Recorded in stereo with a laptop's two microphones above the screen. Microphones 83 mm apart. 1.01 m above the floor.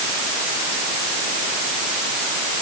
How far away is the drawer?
No drawer in this recording.